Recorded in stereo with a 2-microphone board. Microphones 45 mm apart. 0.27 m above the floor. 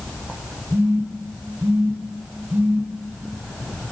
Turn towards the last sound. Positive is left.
turn(degrees=-60)  # may be behind; listen again after turning